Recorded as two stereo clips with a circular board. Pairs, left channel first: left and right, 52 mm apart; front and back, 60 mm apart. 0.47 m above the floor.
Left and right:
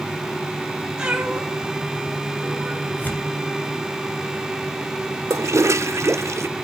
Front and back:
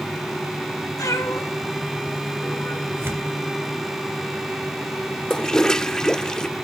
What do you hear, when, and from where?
1.0 s a cat meowing: 15° right, 3 m; by 2.9 s 40° right, 3.5 m
3.0 s tearing paper: 140° left, 3 m
5.3 s a toilet flushing: 80° right, 0.6 m